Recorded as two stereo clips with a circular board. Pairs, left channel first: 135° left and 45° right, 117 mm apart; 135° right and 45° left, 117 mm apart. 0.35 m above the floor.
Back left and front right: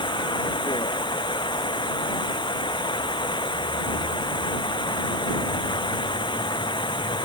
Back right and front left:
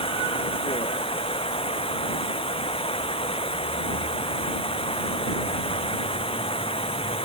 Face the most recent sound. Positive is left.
turn(degrees=-175)